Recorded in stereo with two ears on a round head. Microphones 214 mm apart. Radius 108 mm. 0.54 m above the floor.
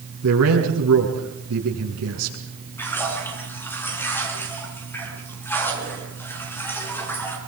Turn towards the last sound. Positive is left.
turn(degrees=10)  # may be behind; listen again after turning